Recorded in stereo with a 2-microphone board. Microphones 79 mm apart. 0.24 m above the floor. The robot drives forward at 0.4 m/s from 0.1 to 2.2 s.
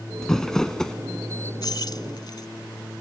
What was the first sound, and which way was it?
Crumpling, 5° left (ahead or behind).